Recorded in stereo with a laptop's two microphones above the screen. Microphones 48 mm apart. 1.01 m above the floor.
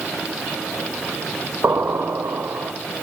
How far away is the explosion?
About 3.5 m.